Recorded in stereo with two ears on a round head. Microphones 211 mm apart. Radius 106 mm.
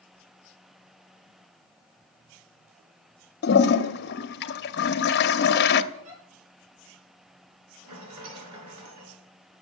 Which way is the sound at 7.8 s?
80° right.